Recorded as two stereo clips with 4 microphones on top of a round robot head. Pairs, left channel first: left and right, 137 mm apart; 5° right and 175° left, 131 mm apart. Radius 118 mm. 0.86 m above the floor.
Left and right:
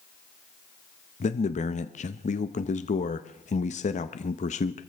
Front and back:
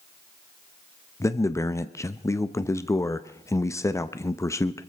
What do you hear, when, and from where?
1.2 s a man speaking: 65° left, 0.7 m